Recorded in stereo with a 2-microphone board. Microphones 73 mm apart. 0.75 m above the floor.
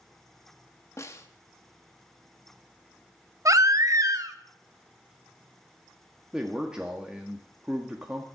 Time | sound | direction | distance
1.0 | a snare drum | 40° left (ahead or behind) | 1.4 m
3.5 | a baby crying | 50° right (ahead or behind) | 0.9 m
6.3 | a man speaking | 10° right (ahead or behind) | 1.3 m